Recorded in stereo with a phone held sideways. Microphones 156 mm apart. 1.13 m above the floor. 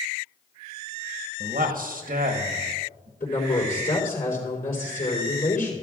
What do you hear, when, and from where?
1.4 s a man speaking: 65° right (ahead or behind), 1.2 m
3.2 s a woman speaking: 75° left (ahead or behind), 3.5 m